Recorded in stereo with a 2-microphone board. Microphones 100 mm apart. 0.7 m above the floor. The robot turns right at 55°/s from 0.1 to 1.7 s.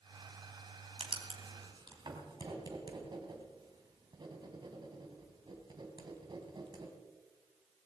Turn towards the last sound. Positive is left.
turn(degrees=-45)  # may be behind; listen again after turning